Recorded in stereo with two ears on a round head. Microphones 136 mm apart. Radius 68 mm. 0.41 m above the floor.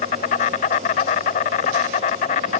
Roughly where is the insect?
Left.